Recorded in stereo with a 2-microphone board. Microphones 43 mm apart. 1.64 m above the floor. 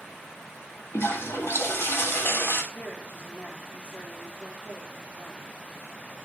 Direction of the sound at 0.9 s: 75° left (ahead or behind).